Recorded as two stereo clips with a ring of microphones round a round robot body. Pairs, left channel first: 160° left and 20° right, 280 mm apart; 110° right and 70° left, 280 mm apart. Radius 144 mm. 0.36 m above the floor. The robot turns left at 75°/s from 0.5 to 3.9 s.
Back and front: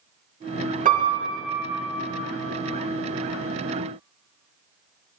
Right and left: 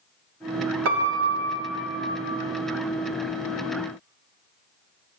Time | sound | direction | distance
0.8 | a piano | 35° left | 0.6 m